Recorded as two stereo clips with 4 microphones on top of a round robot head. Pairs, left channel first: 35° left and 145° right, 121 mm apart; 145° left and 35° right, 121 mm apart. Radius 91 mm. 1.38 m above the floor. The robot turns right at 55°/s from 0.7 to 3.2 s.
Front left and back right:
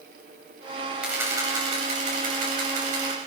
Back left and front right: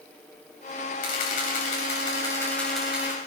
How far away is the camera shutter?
About 7.5 m.